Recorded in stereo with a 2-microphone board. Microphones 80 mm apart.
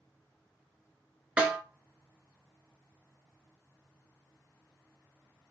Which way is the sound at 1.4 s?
15° right (ahead or behind).